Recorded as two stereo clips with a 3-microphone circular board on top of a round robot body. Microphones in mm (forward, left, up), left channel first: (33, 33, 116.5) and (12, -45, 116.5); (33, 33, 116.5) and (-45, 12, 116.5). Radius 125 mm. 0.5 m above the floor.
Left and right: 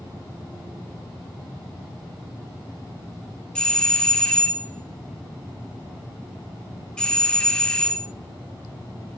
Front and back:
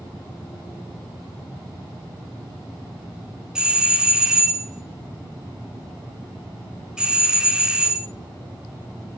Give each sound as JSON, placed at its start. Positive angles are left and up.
{"t": 3.5, "sound": "a doorbell", "azimuth_deg": 135, "distance_m": 1.2}